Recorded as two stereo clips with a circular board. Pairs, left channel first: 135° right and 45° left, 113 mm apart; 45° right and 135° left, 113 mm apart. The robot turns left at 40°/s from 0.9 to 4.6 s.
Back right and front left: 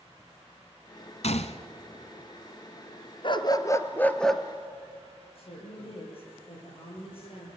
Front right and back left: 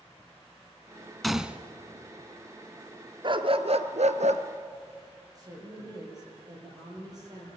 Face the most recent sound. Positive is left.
turn(degrees=-170)